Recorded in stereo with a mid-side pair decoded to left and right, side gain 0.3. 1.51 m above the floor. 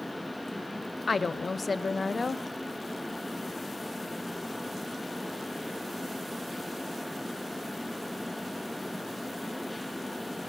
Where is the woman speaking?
50° left, 0.8 m.